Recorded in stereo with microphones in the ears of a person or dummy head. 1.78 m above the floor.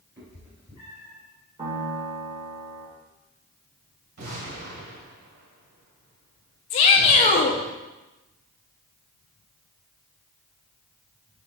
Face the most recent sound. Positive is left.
turn(degrees=35)  # may be behind; listen again after turning